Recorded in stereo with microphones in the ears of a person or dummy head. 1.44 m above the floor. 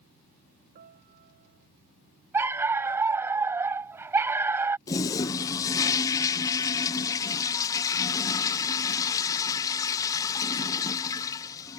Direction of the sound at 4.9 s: 20° left (ahead or behind).